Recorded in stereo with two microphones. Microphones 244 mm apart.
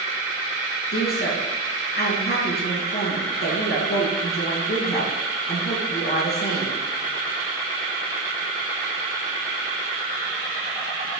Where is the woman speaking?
40° left (ahead or behind), 3.5 m.